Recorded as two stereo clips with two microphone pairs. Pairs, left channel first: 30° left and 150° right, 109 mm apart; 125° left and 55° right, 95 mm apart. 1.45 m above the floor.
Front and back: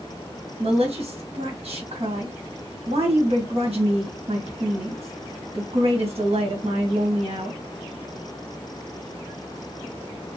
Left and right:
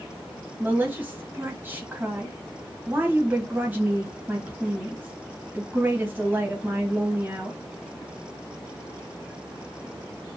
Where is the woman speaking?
120° right, 1.3 m.